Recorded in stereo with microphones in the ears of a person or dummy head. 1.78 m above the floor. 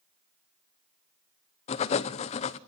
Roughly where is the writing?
Left.